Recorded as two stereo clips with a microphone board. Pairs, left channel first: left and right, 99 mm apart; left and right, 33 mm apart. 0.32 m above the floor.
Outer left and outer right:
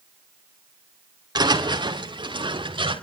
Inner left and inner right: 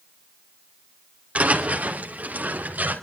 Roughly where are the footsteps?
Right.